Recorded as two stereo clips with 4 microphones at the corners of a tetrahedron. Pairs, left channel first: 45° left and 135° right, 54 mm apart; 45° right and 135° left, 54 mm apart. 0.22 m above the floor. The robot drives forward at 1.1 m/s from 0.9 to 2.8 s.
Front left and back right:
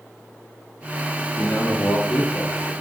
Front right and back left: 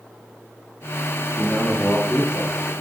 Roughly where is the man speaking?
Ahead left.